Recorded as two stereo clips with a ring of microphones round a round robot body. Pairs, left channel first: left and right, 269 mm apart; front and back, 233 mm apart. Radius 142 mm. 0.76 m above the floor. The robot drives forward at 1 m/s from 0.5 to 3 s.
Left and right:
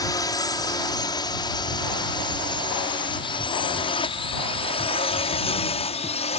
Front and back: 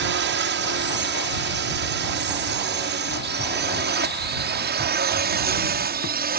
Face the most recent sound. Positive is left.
turn(degrees=150)